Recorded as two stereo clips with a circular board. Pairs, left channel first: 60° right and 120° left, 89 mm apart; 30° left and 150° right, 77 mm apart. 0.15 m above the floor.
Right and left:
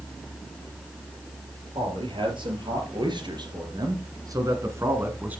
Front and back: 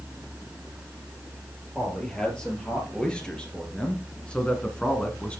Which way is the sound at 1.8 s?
110° left.